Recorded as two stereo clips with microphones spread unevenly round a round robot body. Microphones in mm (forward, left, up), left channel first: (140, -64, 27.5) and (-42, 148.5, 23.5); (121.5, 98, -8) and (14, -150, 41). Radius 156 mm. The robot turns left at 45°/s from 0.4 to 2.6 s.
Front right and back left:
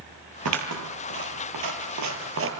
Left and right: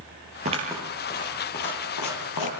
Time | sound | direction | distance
0.5 | scissors | straight behind | 5 m